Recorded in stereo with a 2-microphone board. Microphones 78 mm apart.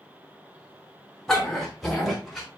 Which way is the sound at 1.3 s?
5° left (ahead or behind).